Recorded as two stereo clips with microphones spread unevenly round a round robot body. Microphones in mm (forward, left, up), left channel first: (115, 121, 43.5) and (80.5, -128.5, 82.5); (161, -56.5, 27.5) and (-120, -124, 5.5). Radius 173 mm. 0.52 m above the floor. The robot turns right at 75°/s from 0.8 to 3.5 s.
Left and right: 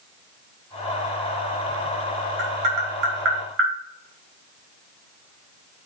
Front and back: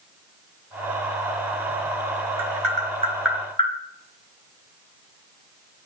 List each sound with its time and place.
2.4 s tapping: 145° right, 4 m; by 3.7 s 60° right, 4 m